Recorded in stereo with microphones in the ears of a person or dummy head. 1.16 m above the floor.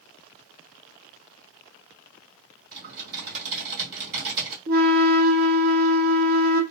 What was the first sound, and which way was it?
Typing on a keyboard, 50° right (ahead or behind).